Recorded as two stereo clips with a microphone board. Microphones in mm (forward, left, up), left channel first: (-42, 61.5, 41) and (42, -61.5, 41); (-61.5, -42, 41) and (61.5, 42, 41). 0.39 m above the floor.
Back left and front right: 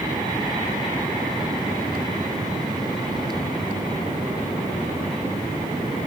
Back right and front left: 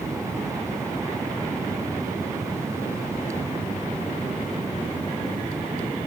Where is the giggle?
No giggle in this recording.